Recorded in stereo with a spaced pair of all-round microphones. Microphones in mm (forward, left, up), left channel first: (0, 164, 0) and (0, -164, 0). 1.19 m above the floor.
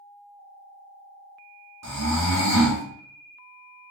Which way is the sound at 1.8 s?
50° right (ahead or behind).